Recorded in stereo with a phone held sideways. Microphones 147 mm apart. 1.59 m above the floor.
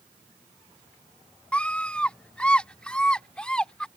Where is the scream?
10° left (ahead or behind); by 3.9 s 5° left (ahead or behind).